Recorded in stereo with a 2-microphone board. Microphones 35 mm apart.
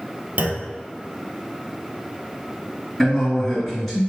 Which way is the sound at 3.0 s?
10° left (ahead or behind).